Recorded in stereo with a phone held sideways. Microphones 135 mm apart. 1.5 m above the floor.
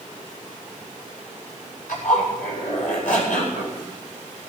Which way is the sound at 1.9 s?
70° left (ahead or behind).